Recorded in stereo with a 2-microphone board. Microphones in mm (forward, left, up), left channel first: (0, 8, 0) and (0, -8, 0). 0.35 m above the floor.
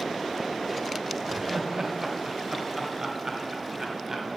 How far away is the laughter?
About 1.0 m.